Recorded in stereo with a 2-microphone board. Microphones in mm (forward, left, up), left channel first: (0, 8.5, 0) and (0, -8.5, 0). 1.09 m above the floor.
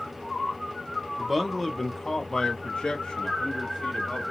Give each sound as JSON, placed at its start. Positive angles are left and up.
{"t": 1.2, "sound": "a man speaking", "side_deg": -5, "distance_m": 1.0}